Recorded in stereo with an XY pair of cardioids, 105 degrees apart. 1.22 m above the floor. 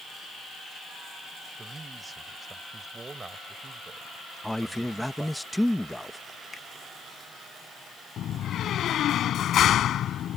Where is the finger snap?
35° left.